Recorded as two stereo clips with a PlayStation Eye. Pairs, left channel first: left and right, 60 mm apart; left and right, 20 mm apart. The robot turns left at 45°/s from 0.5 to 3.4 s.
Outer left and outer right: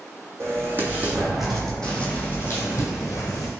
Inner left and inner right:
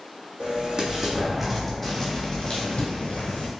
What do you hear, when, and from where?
0.4 s an explosion: 135° right, 1.0 m; by 3.5 s 95° left, 1.0 m
2.5 s tape being pulled: 50° left (ahead or behind), 1.8 m; by 2.9 s 65° left (ahead or behind), 1.8 m